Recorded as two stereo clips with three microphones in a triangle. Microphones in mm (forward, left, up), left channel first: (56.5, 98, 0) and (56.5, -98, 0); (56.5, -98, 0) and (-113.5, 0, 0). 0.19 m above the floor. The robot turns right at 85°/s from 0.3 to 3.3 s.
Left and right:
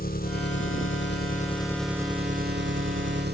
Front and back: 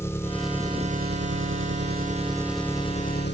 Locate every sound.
0.0 s an engine running: 50° left; by 3.4 s 55° right